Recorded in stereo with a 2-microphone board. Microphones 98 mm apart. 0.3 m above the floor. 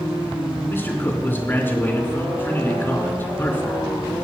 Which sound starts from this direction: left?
A man speaking, at 0.7 s.